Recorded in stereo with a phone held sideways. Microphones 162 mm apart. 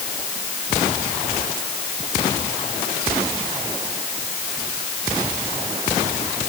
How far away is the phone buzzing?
I don't hear a phone buzzing.